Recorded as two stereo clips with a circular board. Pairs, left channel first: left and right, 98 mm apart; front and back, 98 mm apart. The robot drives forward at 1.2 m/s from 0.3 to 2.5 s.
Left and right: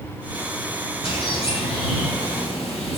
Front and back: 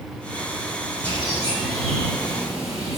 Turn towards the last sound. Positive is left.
turn(degrees=95)